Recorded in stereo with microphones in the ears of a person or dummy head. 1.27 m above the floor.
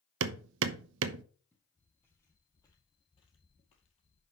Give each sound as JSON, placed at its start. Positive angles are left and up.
{"t": 0.2, "sound": "hammering", "side_deg": -75, "distance_m": 0.8}
{"t": 1.5, "sound": "footsteps", "side_deg": 10, "distance_m": 3.0}